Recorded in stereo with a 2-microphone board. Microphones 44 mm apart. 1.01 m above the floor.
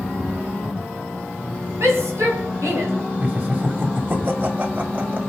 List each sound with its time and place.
1.8 s a shout: 70° right (ahead or behind), 7 m; by 2.9 s 80° right, 5.5 m
3.2 s laughter: 40° right (ahead or behind), 2.5 m